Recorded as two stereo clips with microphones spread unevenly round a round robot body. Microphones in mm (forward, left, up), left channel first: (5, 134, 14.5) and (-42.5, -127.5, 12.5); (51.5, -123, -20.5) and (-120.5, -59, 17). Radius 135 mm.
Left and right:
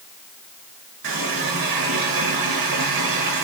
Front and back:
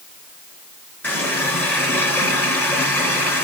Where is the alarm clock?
No alarm clock in this recording.